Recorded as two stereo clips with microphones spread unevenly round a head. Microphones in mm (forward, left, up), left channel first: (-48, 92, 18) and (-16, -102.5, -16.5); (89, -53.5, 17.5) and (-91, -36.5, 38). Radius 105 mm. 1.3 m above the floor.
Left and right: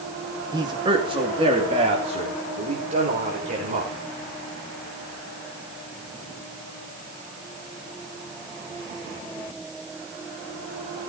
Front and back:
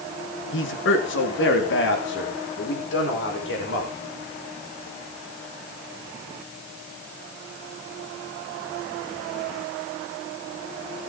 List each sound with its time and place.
0.5 s a man speaking: 10° right, 1.7 m; by 3.9 s 20° right, 6 m